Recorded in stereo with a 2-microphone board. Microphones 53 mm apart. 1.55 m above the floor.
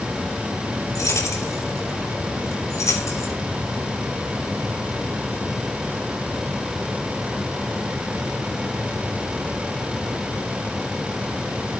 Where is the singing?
No singing in this recording.